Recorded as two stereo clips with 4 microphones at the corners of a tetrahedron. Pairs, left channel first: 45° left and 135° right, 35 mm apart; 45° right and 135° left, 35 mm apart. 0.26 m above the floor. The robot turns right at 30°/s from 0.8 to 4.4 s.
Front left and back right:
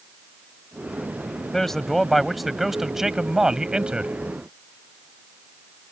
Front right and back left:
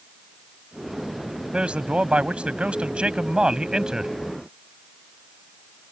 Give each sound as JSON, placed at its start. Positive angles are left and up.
{"t": 1.5, "sound": "a man speaking", "azimuth_deg": 115}